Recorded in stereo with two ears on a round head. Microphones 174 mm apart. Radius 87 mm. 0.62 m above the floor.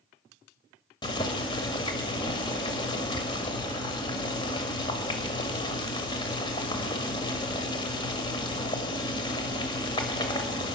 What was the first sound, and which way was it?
Boiling, 25° left (ahead or behind).